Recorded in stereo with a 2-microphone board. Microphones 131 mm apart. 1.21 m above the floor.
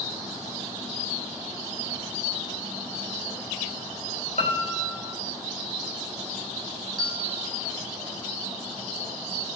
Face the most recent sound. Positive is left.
turn(degrees=-30)  # may be behind; listen again after turning